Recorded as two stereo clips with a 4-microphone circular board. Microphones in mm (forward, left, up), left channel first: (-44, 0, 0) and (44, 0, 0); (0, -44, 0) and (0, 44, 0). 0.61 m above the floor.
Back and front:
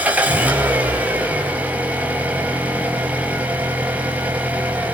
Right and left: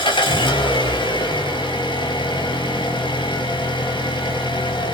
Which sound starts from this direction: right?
An engine running, at 0.0 s.